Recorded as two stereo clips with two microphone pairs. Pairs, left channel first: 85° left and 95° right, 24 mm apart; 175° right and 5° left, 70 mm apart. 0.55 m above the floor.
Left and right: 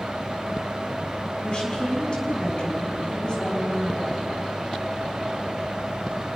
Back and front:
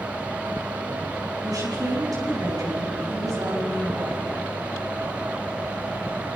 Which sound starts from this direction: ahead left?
A woman speaking, at 1.4 s.